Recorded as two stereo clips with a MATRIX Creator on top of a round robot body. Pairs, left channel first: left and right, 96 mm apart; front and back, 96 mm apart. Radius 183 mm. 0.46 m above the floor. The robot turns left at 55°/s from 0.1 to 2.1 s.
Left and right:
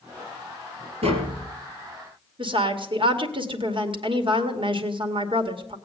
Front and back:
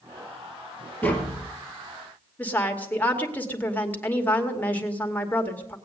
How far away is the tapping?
About 2.5 m.